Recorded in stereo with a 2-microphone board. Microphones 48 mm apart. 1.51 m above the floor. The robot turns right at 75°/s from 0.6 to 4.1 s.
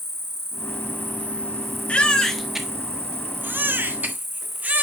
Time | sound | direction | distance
0.0 | an insect | 90° left | 0.9 m
1.9 | a baby crying | 140° left | 1.2 m